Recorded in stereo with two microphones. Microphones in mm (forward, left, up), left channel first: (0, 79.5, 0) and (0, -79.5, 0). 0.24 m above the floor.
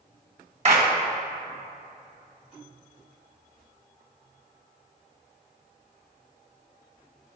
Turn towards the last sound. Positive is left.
turn(degrees=-45)  # may be behind; listen again after turning